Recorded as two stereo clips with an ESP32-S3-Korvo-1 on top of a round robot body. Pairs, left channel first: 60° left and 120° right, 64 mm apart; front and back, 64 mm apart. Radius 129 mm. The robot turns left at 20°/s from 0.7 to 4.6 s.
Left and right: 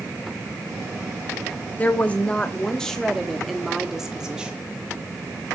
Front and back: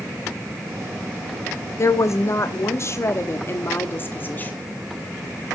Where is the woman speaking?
5° left, 1.1 m; by 4.5 s 50° right, 1.1 m.